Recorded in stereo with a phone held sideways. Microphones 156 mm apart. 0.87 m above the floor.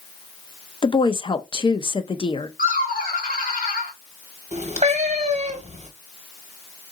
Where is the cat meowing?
45° right (ahead or behind), 0.9 m.